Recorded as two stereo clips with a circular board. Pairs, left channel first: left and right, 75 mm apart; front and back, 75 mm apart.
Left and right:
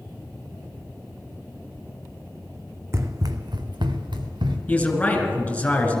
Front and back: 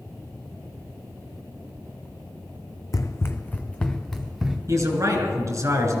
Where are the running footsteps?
40° right, 0.8 m; by 4.6 s 95° right, 1.5 m.